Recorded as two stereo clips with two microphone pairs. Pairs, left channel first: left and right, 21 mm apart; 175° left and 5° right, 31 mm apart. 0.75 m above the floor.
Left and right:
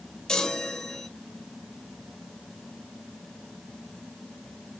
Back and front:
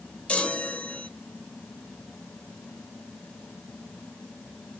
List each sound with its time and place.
0.3 s a chime: 135° left, 0.7 m